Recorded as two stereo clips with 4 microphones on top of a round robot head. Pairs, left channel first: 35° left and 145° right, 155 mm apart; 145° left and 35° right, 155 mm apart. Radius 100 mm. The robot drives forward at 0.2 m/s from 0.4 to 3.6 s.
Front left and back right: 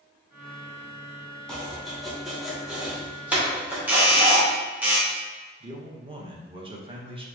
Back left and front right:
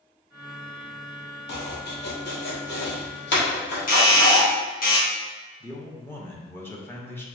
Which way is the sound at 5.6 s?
150° right.